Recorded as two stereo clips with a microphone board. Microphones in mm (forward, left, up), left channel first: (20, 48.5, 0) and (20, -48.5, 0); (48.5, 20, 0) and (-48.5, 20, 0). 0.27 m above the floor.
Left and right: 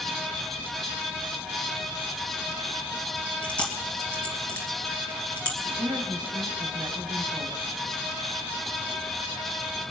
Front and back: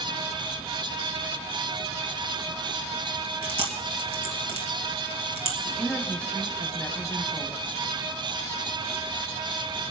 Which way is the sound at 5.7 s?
75° right.